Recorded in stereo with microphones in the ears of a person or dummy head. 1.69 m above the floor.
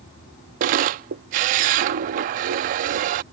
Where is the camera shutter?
45° right (ahead or behind).